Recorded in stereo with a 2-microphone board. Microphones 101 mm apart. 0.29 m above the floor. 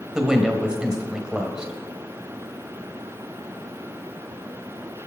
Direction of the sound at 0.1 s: 5° right (ahead or behind).